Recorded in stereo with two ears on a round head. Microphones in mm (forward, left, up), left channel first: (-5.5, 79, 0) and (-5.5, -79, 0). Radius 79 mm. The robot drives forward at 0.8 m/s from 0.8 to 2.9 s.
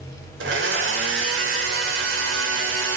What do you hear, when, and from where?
0.4 s a blender: 75° right (ahead or behind), 4 m